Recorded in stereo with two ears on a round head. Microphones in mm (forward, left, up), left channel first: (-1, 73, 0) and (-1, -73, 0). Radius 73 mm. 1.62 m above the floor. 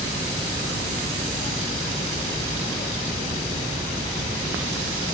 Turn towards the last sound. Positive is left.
No sound to turn to.